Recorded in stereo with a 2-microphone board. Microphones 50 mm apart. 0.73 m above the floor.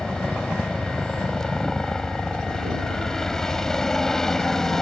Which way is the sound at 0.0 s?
15° left (ahead or behind).